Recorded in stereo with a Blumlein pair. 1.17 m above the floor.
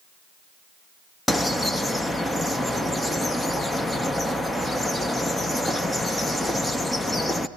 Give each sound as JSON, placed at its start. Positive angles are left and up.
{"t": 1.3, "sound": "a bird", "azimuth_deg": 5, "distance_m": 0.6}